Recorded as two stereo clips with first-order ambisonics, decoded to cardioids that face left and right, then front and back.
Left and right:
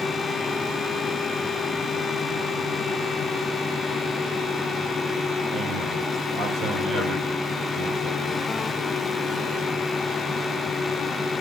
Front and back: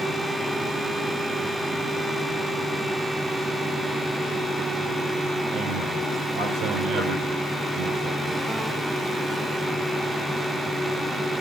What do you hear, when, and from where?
5.5 s a man speaking: 145° right, 5.5 m